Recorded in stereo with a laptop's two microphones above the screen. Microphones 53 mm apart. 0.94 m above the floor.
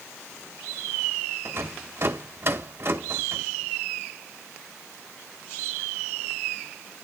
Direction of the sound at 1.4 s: 50° right (ahead or behind).